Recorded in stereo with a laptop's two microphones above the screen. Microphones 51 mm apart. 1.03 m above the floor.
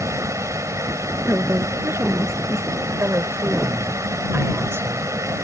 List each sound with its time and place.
0.0 s a fan: 80° right
1.3 s a woman speaking: 60° right (ahead or behind)
3.0 s a woman speaking: 55° right (ahead or behind)